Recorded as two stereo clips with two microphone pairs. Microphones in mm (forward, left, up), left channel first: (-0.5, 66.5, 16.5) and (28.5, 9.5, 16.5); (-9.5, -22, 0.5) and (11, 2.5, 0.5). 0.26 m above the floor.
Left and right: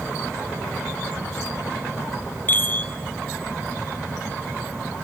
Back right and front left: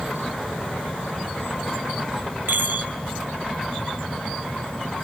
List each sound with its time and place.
2.5 s a chime: 55° left, 0.7 m